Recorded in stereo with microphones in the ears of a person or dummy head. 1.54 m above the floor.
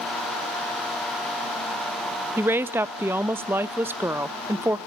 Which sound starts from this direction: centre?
A woman speaking, at 2.4 s.